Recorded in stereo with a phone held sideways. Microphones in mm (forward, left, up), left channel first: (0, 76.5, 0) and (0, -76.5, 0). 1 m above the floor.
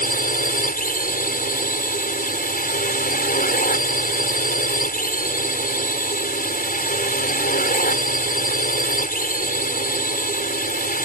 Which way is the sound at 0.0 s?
70° left (ahead or behind).